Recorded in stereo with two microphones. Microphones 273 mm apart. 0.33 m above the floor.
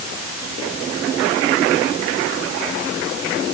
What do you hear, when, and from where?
Only background noise.